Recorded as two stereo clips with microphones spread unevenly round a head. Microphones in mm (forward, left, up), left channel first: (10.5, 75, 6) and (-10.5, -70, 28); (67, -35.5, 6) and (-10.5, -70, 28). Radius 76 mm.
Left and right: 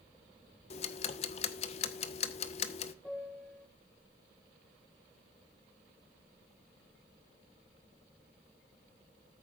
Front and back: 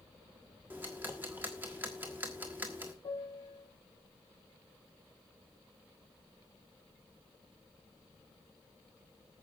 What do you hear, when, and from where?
0.7 s ticking: 130° left, 1.3 m
3.0 s a piano: straight ahead, 2.5 m